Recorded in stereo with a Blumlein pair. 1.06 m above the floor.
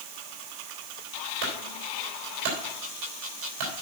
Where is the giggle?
I don't hear a giggle.